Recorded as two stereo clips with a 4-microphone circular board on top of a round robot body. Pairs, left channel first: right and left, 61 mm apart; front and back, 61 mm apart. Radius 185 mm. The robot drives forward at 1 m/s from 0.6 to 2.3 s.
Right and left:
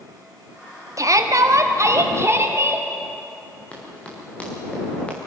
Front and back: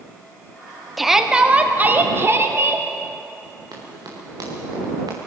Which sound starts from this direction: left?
A shout, at 1.0 s.